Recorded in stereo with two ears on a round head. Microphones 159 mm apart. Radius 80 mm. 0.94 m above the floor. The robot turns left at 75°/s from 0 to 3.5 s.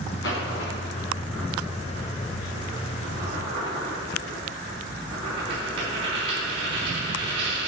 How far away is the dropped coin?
About 4.5 m.